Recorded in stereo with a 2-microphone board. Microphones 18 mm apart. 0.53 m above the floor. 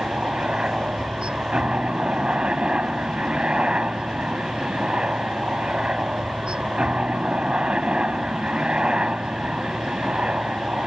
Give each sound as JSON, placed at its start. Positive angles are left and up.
{"t": 0.0, "sound": "a helicopter", "side_deg": -65}